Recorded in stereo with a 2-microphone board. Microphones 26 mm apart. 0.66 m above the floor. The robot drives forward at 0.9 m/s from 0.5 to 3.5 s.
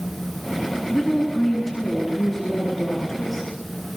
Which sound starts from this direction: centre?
A woman speaking, at 0.9 s.